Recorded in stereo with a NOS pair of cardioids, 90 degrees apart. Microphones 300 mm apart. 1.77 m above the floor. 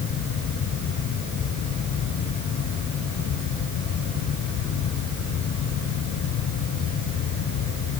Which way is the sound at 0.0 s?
70° left.